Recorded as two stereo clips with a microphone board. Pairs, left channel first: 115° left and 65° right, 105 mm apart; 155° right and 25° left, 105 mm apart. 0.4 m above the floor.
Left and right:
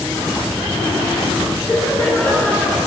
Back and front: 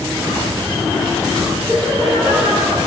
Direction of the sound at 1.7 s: 30° left.